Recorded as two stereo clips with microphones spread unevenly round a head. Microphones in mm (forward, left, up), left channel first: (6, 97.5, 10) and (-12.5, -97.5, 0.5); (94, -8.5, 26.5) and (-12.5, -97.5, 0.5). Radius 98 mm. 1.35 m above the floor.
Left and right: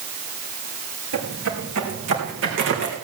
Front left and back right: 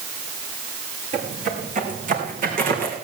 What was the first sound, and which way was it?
Footsteps, 105° right.